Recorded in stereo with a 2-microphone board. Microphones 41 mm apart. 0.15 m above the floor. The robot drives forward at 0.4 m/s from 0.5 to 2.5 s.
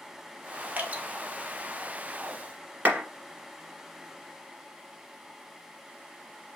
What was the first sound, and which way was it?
Dripping, 40° right (ahead or behind).